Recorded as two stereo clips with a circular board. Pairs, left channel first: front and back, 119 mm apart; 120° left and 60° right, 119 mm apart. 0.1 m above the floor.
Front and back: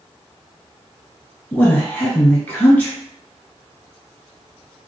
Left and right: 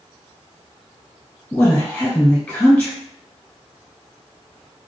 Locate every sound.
1.5 s a woman speaking: 55° left, 1.5 m